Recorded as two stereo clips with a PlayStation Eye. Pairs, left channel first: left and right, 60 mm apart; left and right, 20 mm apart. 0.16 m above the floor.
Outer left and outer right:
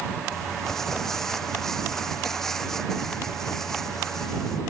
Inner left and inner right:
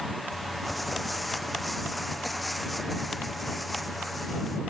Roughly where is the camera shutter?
No camera shutter in this recording.